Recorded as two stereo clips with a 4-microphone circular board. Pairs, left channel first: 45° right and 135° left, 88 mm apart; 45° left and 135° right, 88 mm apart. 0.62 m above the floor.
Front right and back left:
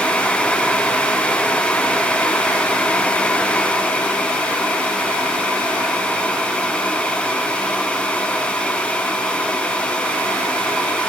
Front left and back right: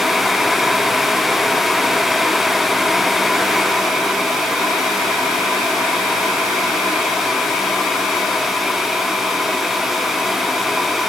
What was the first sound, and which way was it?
Only background noise.